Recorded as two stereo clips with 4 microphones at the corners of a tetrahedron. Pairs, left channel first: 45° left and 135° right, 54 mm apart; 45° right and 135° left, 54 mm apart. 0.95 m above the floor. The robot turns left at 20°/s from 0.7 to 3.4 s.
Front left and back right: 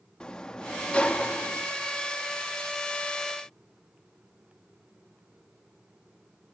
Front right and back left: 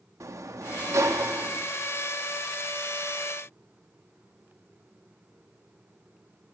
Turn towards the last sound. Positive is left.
turn(degrees=65)